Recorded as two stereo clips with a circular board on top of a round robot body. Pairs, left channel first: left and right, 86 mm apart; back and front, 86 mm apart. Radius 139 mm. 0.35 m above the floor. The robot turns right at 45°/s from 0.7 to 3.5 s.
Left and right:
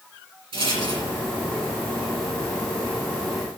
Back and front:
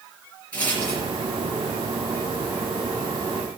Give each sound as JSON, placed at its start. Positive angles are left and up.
{"t": 0.5, "sound": "a rattle", "azimuth_deg": -105, "distance_m": 4.5}